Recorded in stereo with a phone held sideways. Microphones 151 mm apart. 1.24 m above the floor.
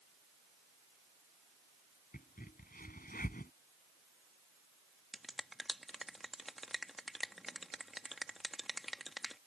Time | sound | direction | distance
2.1 | a crack | 75° left (ahead or behind) | ?
5.1 | a finger snap | centre (ahead or behind) | ?